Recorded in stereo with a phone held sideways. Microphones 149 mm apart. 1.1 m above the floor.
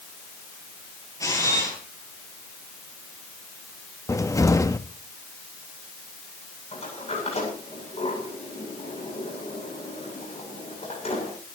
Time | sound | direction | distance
1.2 | a camera shutter | 25° left (ahead or behind) | 4.5 m
4.1 | a cupboard door | 20° left (ahead or behind) | 0.9 m
6.7 | a sliding door | 45° left (ahead or behind) | 9 m